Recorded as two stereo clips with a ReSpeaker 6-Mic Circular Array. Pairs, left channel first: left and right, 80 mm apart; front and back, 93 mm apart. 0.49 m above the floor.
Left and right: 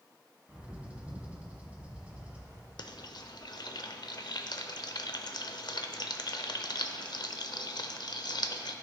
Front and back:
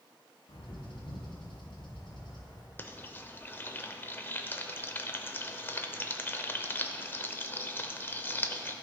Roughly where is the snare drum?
I don't hear a snare drum.